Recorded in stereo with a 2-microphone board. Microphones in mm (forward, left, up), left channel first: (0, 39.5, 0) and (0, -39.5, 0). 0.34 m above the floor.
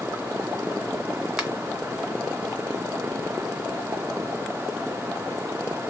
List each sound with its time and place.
1.4 s a finger snap: 10° right (ahead or behind), 1.5 m